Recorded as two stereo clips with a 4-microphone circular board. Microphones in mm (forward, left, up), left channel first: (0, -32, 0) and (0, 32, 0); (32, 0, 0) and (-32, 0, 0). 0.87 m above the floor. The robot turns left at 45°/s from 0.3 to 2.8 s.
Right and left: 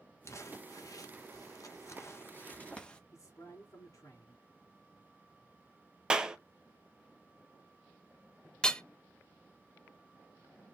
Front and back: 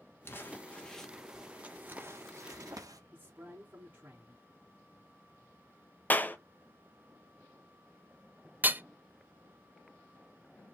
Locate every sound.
0.2 s crumpling: 50° right, 1.0 m; by 3.0 s 165° right, 1.0 m
3.1 s a man speaking: 120° right, 2.5 m
6.1 s a clap: 25° left, 0.7 m
8.6 s hammering: 155° right, 0.5 m